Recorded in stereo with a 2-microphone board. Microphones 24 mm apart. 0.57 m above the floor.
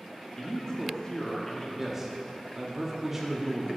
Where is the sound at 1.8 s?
20° right (ahead or behind), 0.9 m.